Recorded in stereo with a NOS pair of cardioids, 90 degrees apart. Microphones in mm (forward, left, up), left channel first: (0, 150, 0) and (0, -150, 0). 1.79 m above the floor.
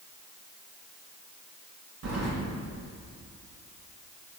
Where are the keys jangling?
60° right, 2.5 m.